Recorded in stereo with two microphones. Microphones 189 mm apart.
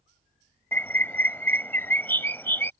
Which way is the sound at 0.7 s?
10° left (ahead or behind).